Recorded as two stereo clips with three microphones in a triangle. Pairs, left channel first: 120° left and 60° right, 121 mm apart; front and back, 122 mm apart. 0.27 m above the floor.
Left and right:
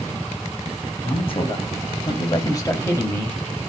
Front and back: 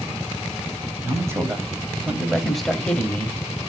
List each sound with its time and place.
1.0 s a man speaking: 120° left, 1.6 m; by 3.4 s 50° left, 1.2 m